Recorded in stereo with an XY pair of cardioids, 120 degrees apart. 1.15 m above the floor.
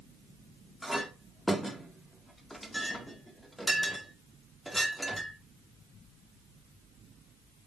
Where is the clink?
5° left, 2 m.